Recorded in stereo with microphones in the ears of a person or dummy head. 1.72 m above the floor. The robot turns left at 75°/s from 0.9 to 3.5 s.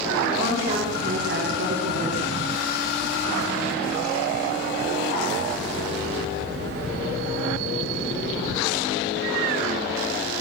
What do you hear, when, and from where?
0.4 s a woman speaking: 40° right, 4.5 m; by 2.3 s 145° right, 4.5 m